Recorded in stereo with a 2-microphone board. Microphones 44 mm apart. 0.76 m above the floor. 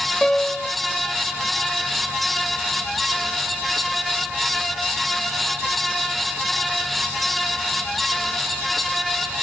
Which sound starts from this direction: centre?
A piano, at 0.2 s.